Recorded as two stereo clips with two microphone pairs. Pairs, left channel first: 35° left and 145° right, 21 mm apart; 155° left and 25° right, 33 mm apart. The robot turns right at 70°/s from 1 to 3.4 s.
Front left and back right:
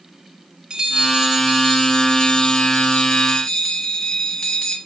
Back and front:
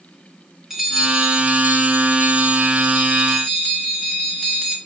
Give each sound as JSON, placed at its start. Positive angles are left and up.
{"t": 0.7, "sound": "a bell", "azimuth_deg": -100, "distance_m": 1.7}